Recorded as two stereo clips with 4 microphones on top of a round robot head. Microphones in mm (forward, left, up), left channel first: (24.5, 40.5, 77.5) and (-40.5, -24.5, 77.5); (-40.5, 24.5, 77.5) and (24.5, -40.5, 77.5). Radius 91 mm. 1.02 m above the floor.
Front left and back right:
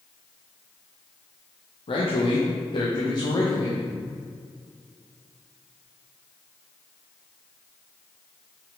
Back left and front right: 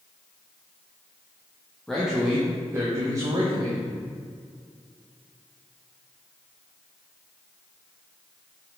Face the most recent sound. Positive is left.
turn(degrees=-10)